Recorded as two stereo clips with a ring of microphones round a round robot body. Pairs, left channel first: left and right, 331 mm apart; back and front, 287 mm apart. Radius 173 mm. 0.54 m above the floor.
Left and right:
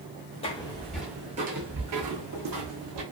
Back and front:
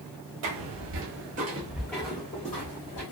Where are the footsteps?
20° left, 0.8 m; by 3.0 s 120° right, 1.1 m.